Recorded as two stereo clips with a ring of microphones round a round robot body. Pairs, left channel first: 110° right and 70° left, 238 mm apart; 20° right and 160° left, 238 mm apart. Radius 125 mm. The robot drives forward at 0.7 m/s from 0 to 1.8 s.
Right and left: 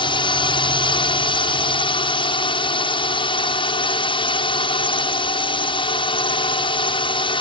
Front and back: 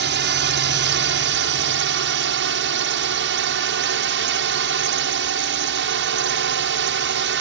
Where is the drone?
175° right.